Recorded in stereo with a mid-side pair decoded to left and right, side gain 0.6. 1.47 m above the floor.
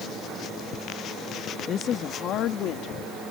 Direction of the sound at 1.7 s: 45° left.